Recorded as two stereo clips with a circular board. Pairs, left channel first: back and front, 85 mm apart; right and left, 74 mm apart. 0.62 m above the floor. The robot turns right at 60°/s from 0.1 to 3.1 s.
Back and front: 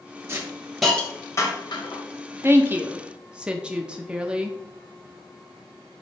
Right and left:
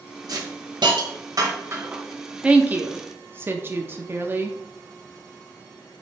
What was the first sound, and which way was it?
A hiss, 60° left.